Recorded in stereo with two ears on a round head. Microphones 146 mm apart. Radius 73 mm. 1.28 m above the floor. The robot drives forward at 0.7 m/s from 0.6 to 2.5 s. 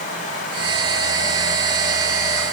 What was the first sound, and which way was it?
Only background noise.